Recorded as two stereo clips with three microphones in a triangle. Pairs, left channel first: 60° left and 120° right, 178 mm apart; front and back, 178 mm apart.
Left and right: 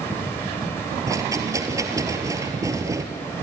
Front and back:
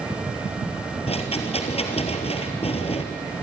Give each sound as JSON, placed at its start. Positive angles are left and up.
{"t": 1.1, "sound": "a rattle", "azimuth_deg": -50, "distance_m": 1.7}